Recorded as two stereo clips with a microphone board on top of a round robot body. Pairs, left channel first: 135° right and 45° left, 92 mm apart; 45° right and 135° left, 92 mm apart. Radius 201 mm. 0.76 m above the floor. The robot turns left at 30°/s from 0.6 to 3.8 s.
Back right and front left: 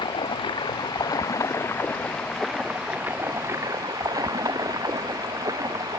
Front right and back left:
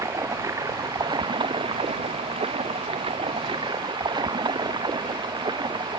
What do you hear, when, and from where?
0.0 s running water: 170° right; by 6.0 s 95° left